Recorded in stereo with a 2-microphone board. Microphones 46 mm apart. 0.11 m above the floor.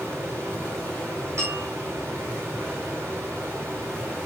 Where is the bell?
85° right, 4.5 m.